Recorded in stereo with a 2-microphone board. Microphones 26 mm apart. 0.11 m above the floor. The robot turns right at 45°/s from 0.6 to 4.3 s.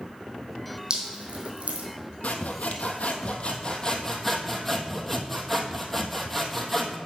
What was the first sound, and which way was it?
Dripping, 40° right (ahead or behind).